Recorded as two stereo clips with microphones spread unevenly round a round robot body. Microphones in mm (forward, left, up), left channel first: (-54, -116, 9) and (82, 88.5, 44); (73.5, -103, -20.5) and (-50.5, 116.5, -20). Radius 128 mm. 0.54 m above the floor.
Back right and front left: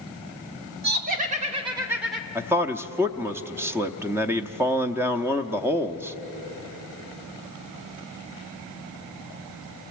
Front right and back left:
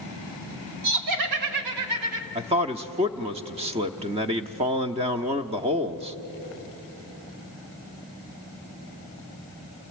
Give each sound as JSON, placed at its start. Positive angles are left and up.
{"t": 0.8, "sound": "laughter", "azimuth_deg": 110, "distance_m": 2.5}
{"t": 2.4, "sound": "a man speaking", "azimuth_deg": 145, "distance_m": 0.7}